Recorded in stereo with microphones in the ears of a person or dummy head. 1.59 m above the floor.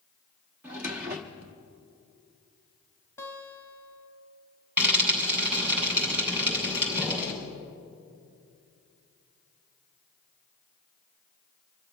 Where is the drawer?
15° right (ahead or behind), 0.7 m.